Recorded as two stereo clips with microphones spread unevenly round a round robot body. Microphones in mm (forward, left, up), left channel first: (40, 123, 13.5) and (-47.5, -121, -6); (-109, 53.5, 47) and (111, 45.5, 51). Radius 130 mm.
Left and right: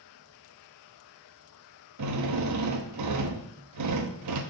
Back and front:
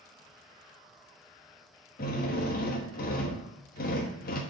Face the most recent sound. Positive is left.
turn(degrees=-130)